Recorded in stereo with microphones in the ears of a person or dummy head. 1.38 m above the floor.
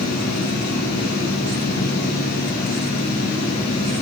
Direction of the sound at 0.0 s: 55° left (ahead or behind).